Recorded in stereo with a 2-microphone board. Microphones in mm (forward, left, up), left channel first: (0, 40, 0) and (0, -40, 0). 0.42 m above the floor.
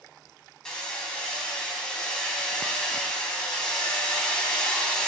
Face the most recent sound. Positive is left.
turn(degrees=10)  # may be behind; listen again after turning